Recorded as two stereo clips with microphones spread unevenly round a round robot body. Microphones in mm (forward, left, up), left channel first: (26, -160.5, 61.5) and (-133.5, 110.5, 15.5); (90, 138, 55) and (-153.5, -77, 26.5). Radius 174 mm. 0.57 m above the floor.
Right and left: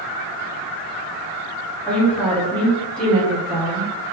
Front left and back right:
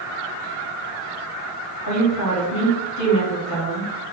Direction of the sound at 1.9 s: 35° left.